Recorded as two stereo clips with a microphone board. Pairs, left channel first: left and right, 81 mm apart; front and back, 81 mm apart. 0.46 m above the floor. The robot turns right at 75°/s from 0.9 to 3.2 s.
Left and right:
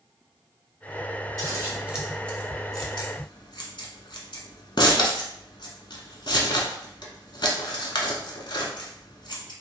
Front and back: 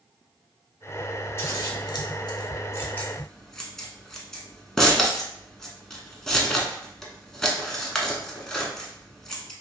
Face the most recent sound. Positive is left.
turn(degrees=80)